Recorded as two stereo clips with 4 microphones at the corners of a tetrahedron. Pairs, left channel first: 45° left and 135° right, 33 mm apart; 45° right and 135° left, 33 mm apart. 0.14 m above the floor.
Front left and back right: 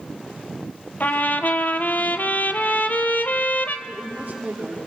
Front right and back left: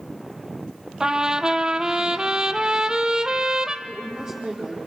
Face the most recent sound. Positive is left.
turn(degrees=-160)